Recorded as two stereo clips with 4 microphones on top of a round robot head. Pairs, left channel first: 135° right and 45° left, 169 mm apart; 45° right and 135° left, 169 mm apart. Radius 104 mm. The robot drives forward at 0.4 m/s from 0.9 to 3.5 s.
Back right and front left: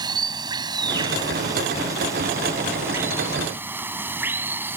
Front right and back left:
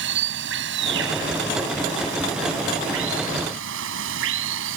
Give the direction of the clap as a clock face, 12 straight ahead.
No clap in this recording.